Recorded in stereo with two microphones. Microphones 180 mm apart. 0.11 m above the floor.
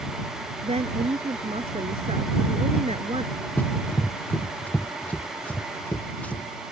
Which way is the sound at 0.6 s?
40° right (ahead or behind).